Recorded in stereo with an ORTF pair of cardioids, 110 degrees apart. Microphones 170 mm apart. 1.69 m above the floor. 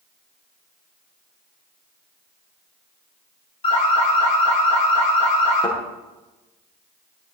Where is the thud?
30° left, 8.5 m.